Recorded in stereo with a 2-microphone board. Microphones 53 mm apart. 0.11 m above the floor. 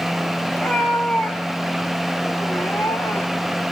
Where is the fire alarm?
No fire alarm in this recording.